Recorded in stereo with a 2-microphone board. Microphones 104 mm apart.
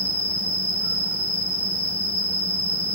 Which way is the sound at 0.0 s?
60° left (ahead or behind).